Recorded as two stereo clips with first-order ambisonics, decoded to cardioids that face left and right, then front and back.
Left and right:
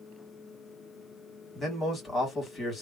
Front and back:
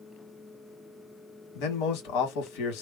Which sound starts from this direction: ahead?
A man speaking, at 1.6 s.